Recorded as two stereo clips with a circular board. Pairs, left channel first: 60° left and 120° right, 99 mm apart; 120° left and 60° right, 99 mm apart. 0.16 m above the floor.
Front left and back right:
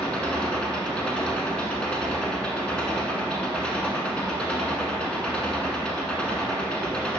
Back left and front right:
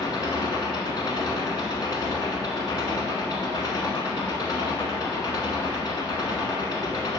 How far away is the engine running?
About 0.9 m.